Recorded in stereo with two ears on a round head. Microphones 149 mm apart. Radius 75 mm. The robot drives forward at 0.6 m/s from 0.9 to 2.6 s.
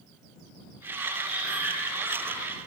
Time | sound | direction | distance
1.2 | breathing | 10° right (ahead or behind) | 1.4 m